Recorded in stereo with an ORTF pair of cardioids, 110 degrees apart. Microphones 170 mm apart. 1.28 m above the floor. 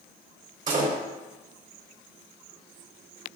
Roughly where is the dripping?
No dripping in this recording.